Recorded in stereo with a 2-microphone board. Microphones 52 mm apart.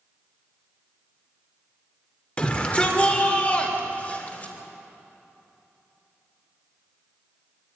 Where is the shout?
20° left (ahead or behind), 2.5 m; by 4.5 s 30° left (ahead or behind), 4 m.